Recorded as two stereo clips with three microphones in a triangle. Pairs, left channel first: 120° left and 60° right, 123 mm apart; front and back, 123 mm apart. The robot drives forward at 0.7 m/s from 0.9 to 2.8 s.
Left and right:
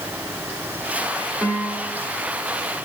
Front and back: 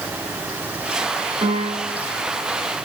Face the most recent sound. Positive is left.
turn(degrees=-160)